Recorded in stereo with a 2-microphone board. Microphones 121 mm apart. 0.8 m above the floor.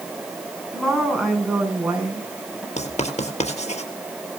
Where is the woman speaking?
Centre (ahead or behind), 7.5 m; by 2.7 s 10° right (ahead or behind), 6 m.